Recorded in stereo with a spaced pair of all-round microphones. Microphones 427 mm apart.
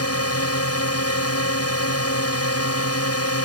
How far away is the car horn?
I don't hear a car horn.